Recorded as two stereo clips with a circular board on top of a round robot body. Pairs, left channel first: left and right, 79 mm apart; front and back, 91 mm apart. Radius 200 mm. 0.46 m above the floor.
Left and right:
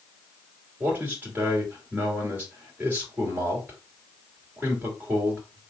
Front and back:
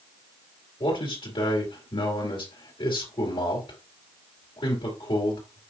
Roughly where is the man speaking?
Ahead right.